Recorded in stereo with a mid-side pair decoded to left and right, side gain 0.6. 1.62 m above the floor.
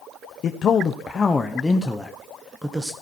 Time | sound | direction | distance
0.4 | a man speaking | 45° left | 1.1 m